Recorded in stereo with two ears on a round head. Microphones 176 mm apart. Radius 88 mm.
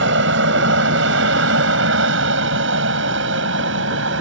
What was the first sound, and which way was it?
An aircraft, 65° right (ahead or behind).